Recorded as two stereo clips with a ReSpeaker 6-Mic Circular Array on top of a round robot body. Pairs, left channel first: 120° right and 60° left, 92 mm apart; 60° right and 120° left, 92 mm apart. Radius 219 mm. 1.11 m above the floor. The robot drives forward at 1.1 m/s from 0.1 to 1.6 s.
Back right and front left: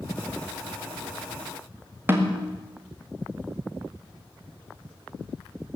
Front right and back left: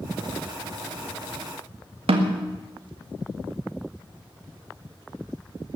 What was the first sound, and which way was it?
A snare drum, 125° left.